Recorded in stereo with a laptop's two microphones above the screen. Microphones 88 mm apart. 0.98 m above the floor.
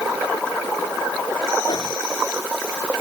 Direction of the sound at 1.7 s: 50° left (ahead or behind).